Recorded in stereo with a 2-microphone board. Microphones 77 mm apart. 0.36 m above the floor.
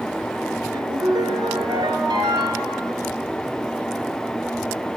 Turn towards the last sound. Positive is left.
turn(degrees=-75)  # may be behind; listen again after turning